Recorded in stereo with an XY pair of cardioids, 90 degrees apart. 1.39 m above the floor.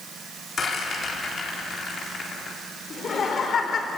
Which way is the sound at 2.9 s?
55° left.